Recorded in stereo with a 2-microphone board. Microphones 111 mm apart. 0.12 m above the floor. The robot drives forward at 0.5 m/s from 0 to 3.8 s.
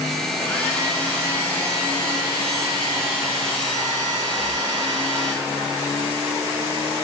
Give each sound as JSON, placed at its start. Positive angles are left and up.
{"t": 0.4, "sound": "a hair dryer", "side_deg": 15, "distance_m": 1.4}